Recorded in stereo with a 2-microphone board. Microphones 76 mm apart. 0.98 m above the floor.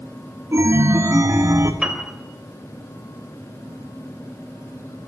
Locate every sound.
0.5 s a chime: 40° right (ahead or behind), 1.5 m
1.8 s a piano: 10° right (ahead or behind), 3 m